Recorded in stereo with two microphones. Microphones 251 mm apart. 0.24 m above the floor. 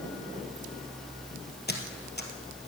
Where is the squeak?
40° left (ahead or behind), 2 m.